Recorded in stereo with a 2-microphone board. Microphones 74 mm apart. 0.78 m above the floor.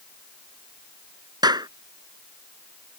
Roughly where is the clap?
Right.